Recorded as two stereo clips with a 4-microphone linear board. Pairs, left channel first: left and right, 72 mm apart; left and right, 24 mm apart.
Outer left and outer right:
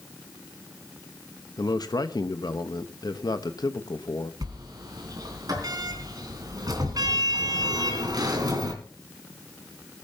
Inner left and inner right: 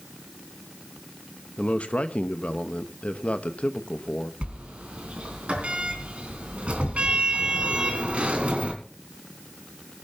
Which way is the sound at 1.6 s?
70° left (ahead or behind).